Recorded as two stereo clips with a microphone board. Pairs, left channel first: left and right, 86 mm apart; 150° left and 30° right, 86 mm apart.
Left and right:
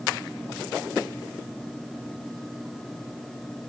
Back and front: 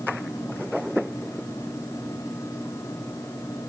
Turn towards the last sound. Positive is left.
No sound to turn to.